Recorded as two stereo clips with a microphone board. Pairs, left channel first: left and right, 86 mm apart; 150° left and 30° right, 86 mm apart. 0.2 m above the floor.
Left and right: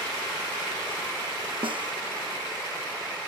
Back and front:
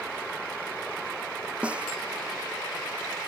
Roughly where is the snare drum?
Right.